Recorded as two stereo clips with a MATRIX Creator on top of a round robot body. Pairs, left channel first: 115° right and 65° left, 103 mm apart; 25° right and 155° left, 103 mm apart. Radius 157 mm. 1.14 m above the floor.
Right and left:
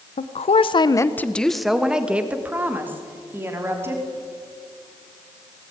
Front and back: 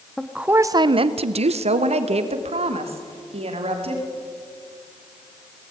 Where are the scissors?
I don't hear scissors.